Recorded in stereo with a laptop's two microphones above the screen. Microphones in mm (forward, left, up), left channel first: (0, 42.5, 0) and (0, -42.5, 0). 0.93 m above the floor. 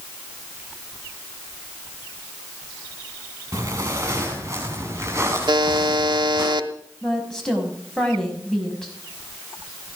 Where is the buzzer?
65° right (ahead or behind), 1.2 m.